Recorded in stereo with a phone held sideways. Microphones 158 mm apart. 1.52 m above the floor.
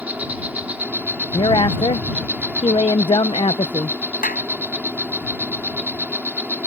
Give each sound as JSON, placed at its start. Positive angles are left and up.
{"t": 0.0, "sound": "an insect", "side_deg": -10}
{"t": 1.3, "sound": "a woman speaking", "side_deg": 35}
{"t": 4.2, "sound": "a clap", "side_deg": 75}